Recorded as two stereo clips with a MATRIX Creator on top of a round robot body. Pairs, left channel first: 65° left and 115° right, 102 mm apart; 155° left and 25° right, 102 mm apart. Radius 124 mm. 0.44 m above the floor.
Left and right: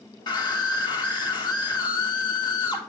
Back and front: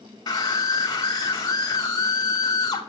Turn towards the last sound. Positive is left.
turn(degrees=110)